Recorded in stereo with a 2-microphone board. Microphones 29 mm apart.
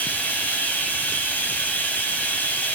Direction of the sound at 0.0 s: 65° left (ahead or behind).